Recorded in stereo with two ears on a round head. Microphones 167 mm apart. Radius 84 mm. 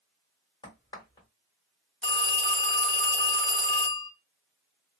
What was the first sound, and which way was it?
A crack, 25° left (ahead or behind).